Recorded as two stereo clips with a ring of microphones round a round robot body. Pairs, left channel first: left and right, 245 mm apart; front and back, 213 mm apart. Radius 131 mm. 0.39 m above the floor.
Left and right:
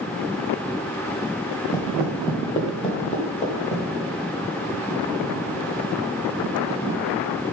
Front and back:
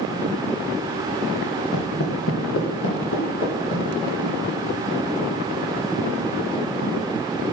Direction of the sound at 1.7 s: 15° left.